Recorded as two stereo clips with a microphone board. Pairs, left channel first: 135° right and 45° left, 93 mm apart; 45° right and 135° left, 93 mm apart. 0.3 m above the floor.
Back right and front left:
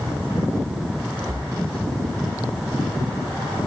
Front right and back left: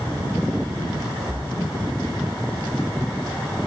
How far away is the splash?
About 1.5 m.